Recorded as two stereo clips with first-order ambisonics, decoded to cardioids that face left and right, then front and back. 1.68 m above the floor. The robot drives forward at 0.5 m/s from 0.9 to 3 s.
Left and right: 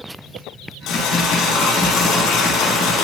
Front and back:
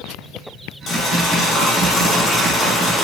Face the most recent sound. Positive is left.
turn(degrees=70)